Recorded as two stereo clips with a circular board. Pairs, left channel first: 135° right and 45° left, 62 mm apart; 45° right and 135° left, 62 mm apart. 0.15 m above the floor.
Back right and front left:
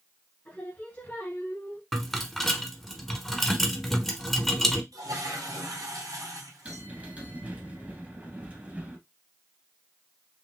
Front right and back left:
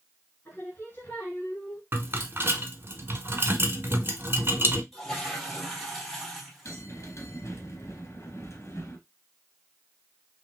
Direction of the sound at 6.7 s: 20° right.